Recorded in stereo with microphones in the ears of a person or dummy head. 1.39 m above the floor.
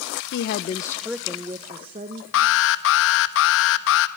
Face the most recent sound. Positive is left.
turn(degrees=65)  # may be behind; listen again after turning